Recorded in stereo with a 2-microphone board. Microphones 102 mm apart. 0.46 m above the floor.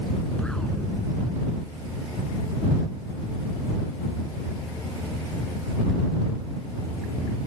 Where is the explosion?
5° left (ahead or behind).